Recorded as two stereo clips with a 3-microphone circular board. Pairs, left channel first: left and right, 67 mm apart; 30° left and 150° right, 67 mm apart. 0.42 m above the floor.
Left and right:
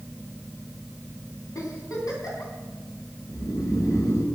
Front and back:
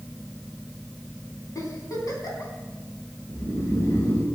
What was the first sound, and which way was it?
A giggle, 60° left.